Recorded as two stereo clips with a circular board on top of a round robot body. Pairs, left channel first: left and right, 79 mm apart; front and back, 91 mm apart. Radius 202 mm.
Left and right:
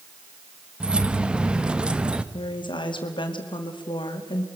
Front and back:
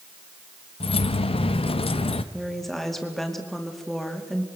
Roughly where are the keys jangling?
Ahead.